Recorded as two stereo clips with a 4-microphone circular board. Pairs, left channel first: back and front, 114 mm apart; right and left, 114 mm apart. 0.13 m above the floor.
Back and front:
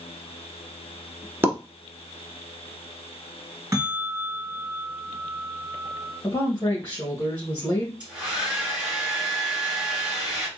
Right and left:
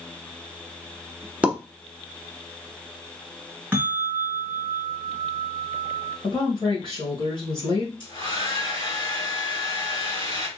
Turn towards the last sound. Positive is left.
turn(degrees=-75)